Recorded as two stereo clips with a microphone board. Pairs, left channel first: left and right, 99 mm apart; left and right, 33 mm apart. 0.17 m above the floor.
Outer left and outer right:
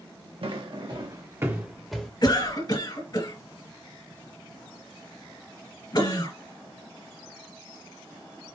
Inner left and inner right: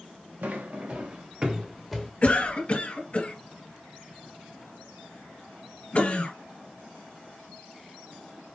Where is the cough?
40° left (ahead or behind), 1.8 m.